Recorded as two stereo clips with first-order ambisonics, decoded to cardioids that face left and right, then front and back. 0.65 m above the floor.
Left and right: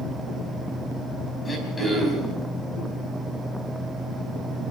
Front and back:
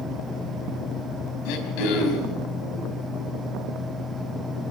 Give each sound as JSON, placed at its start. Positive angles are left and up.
{"t": 1.4, "sound": "throat clearing", "azimuth_deg": 10, "distance_m": 4.0}